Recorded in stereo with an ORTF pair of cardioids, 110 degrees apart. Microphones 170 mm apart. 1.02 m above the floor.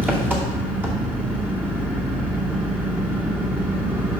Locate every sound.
0.0 s an engine running: 10° right, 2 m